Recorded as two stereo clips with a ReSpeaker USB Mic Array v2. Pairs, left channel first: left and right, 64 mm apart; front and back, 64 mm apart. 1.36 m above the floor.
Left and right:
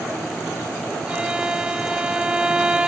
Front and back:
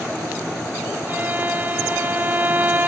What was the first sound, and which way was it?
A violin, 150° right.